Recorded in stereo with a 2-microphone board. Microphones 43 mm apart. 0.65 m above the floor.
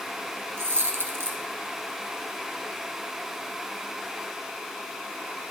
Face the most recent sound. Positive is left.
turn(degrees=-70)  # may be behind; listen again after turning